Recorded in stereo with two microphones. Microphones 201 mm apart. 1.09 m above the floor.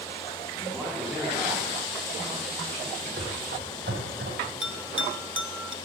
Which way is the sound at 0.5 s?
5° left (ahead or behind).